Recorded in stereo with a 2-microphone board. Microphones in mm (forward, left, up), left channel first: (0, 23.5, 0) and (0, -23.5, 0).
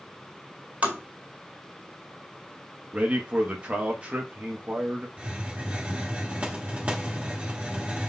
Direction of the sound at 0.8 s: 35° right (ahead or behind).